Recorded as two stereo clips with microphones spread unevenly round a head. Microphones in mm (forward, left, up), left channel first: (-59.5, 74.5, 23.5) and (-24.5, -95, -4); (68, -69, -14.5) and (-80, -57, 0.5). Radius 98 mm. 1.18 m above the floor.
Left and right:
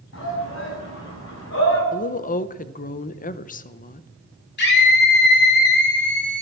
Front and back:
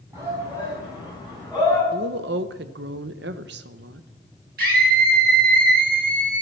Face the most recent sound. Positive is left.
turn(degrees=125)